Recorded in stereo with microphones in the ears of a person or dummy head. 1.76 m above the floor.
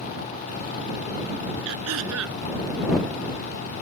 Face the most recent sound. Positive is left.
turn(degrees=-75)  # may be behind; listen again after turning